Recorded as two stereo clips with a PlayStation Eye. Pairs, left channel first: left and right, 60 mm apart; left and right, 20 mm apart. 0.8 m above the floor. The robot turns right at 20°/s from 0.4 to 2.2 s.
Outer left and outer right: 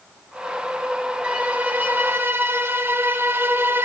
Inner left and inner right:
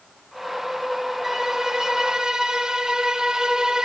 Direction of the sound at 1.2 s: 15° right (ahead or behind).